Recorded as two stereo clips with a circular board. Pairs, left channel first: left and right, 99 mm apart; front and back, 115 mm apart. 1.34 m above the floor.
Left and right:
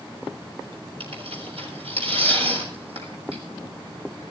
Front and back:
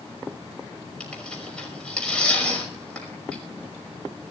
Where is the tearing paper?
80° right, 6 m.